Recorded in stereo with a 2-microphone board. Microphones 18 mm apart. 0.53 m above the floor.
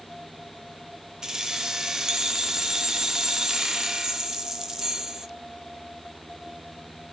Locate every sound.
1.2 s keys jangling: 35° right (ahead or behind), 0.6 m